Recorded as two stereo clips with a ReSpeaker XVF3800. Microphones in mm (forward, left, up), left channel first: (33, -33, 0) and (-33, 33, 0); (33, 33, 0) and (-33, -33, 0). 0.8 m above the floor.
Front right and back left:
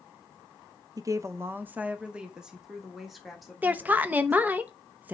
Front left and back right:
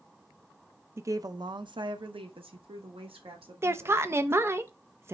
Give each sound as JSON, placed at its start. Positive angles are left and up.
{"t": 1.0, "sound": "a woman speaking", "azimuth_deg": 170, "distance_m": 0.6}
{"t": 3.6, "sound": "a woman speaking", "azimuth_deg": -170, "distance_m": 0.7}